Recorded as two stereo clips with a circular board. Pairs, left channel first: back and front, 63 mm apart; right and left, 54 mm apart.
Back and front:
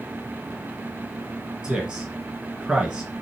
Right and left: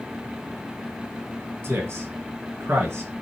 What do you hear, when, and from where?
1.6 s a man speaking: 75° left, 1.6 m